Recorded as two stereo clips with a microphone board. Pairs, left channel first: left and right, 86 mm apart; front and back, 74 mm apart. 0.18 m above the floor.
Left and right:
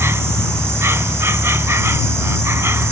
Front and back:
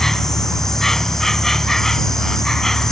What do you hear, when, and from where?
0.0 s an insect: 80° right